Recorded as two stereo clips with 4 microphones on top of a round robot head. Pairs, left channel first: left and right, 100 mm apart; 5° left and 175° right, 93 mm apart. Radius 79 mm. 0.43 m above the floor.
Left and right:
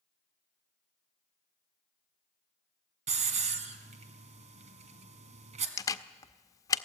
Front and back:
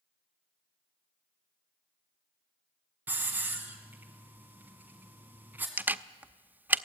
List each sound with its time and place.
3.1 s a hiss: 100° right, 1.8 m
5.8 s a camera shutter: 125° left, 0.8 m